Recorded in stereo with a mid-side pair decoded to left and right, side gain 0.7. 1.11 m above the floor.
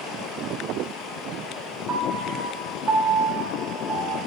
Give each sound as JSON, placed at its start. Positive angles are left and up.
{"t": 1.9, "sound": "a piano", "azimuth_deg": -30, "distance_m": 1.8}